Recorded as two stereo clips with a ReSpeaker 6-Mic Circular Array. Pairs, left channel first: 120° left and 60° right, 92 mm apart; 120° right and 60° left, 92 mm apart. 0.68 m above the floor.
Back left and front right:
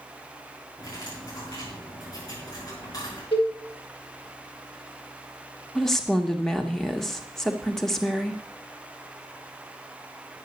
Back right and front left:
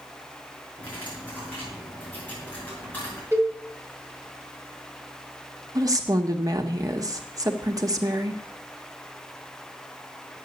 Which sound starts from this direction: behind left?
A cowbell, at 3.3 s.